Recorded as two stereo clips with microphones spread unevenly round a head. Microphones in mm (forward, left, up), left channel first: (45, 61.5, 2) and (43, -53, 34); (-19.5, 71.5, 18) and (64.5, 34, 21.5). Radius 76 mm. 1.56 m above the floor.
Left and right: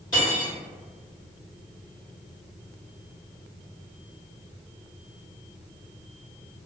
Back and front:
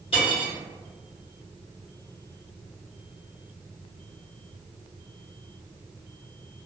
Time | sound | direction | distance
0.1 | cutlery clinking | 165° left | 1.4 m